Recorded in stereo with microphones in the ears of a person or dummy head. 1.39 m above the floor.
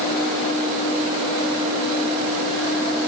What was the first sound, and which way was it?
Only background noise.